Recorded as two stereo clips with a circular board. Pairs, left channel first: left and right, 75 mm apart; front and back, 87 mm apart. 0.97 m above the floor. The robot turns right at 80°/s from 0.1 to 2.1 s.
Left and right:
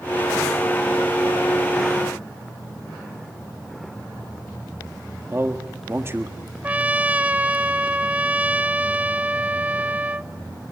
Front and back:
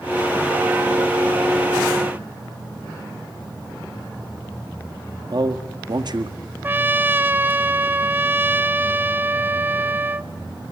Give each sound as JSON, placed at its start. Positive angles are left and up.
{"t": 5.3, "sound": "a man speaking", "azimuth_deg": -145, "distance_m": 1.6}
{"t": 6.6, "sound": "a trumpet", "azimuth_deg": -140, "distance_m": 0.5}